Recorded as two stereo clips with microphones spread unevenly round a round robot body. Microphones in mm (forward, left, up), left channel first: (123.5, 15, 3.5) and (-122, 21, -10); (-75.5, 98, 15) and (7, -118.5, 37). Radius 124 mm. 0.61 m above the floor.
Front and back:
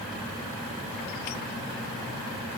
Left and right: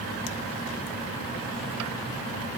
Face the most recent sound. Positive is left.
No sound to turn to.